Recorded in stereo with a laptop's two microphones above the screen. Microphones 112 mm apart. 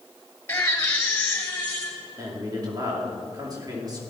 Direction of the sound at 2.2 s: 35° right (ahead or behind).